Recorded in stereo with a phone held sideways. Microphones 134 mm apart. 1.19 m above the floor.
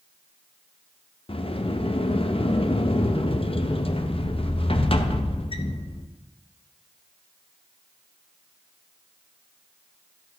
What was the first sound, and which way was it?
A sliding door, 45° left (ahead or behind).